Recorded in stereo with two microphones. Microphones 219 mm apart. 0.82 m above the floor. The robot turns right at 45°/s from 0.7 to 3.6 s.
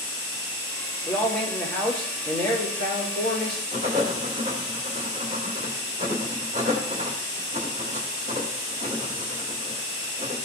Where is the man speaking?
160° left, 3 m; by 3.6 s 85° right, 3 m.